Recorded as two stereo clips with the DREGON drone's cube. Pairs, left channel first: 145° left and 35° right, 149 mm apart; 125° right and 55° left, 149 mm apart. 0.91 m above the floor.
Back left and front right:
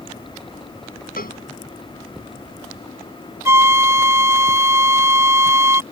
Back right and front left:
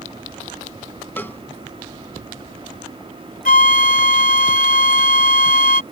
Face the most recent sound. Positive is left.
turn(degrees=-105)